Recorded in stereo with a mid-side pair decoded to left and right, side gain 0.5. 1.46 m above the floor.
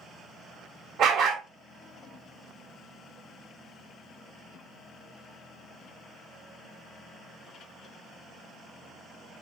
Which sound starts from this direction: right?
A dog barking, at 1.0 s.